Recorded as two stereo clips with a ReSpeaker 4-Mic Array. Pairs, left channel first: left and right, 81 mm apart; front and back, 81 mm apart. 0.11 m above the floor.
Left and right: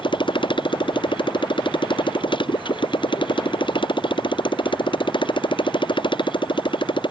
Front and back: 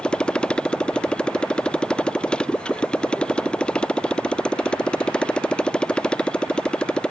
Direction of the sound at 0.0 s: 80° left.